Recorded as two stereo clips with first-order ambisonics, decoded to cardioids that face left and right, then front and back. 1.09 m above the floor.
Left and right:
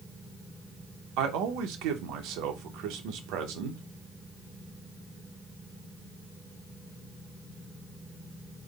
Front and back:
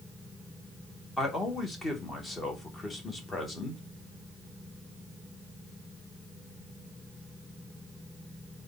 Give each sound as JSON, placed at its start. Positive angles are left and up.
{"t": 1.2, "sound": "a man speaking", "azimuth_deg": -75, "distance_m": 0.9}